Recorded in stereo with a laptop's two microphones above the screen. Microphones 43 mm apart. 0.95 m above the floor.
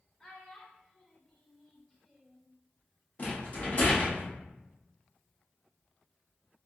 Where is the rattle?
35° left (ahead or behind), 1.0 m.